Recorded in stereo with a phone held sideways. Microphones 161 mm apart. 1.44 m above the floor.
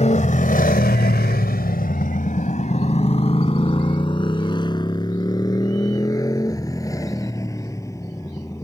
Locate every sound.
0.0 s a motorcycle: 45° left (ahead or behind); by 8.6 s 15° left (ahead or behind)